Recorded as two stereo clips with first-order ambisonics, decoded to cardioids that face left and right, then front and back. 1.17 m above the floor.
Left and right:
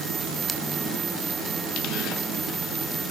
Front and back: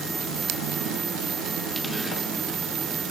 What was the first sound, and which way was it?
Only background noise.